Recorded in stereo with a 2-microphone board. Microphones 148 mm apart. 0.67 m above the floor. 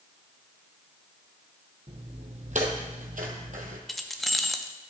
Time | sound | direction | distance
1.9 | footsteps | 40° right (ahead or behind) | 1.6 m
3.9 | keys jangling | centre (ahead or behind) | 0.6 m